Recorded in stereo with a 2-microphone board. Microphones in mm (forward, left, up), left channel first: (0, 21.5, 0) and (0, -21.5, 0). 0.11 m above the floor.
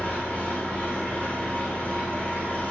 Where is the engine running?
40° left (ahead or behind), 2.0 m.